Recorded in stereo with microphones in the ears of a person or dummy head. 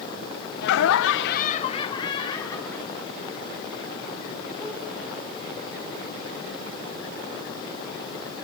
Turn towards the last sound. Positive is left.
turn(degrees=0)  # may be behind; listen again after turning